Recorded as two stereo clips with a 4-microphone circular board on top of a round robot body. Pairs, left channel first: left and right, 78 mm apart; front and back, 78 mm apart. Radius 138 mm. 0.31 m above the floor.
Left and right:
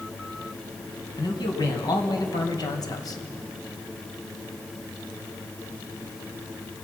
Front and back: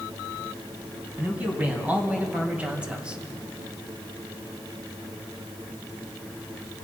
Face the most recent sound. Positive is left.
turn(degrees=105)